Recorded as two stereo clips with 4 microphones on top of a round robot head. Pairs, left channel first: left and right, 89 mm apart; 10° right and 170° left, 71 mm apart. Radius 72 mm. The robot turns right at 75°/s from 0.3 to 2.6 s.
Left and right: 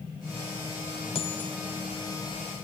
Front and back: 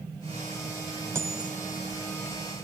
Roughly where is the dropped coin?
Behind left.